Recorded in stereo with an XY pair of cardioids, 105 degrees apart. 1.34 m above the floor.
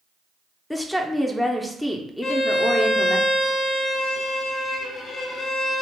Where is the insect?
I don't hear an insect.